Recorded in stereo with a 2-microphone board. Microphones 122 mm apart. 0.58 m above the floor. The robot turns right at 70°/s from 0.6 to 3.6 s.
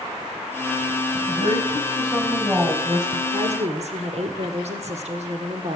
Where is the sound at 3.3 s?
55° right (ahead or behind), 1.7 m; by 5.8 s 60° right (ahead or behind), 1.7 m.